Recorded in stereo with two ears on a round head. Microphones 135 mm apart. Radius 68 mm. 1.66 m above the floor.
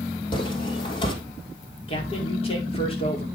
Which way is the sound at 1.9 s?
40° left (ahead or behind).